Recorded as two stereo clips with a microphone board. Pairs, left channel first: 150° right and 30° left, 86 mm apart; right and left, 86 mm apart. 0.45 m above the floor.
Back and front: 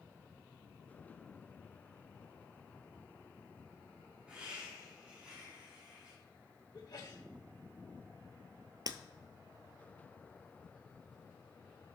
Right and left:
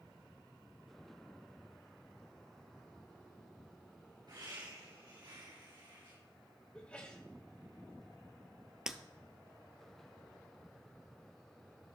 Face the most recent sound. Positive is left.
turn(degrees=10)